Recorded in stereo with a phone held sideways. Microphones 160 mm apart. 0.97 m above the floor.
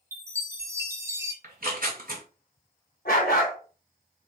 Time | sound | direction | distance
0.1 | a chime | 20° right (ahead or behind) | 0.7 m
1.4 | tearing paper | 65° right (ahead or behind) | 1.9 m
3.0 | a dog barking | 65° left (ahead or behind) | 1.5 m